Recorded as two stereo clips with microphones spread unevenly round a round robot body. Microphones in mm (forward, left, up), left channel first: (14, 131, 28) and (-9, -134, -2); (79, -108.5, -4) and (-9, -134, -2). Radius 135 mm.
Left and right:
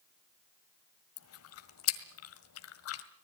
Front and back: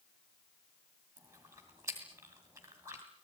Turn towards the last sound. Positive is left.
turn(degrees=120)